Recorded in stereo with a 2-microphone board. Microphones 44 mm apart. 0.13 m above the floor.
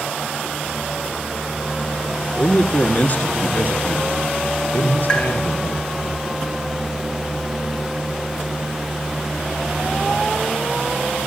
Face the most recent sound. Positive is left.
turn(degrees=25)  # may be behind; listen again after turning